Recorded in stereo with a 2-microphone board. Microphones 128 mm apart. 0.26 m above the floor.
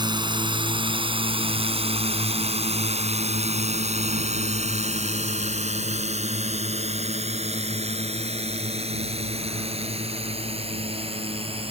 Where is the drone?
35° right (ahead or behind); by 11.7 s 50° right (ahead or behind).